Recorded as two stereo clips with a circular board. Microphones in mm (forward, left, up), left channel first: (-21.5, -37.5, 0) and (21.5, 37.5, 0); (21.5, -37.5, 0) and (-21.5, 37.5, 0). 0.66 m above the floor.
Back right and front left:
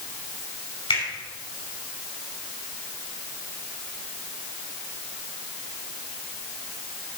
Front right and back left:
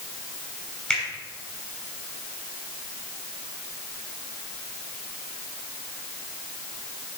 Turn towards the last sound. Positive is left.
turn(degrees=-135)